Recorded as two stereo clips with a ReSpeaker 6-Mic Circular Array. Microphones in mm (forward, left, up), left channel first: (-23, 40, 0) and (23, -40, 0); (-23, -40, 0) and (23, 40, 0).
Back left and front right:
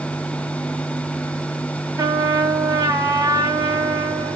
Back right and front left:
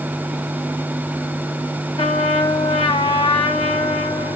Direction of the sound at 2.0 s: 110° right.